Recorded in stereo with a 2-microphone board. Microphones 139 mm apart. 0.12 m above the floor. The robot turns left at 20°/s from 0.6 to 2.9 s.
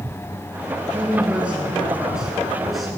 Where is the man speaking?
15° right (ahead or behind), 1.4 m; by 2.9 s centre (ahead or behind), 1.4 m.